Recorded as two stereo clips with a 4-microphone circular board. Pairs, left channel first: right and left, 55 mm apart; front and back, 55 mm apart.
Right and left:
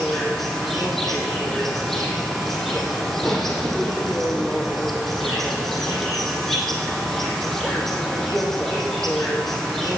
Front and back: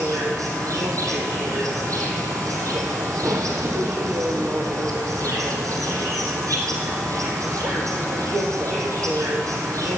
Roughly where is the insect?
Behind.